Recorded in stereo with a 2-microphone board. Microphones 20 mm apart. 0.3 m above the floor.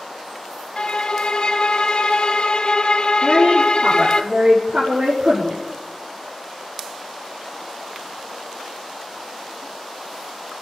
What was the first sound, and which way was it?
A violin, 50° left (ahead or behind).